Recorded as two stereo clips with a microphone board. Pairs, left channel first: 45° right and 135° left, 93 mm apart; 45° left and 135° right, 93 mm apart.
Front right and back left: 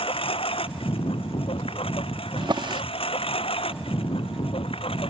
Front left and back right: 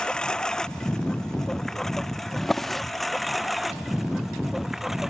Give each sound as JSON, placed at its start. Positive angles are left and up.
{"t": 0.0, "sound": "a lawn mower", "azimuth_deg": -35}
{"t": 2.4, "sound": "a drawer", "azimuth_deg": 130}